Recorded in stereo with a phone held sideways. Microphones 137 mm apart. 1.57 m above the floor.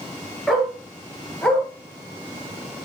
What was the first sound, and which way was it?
A dog barking, centre (ahead or behind).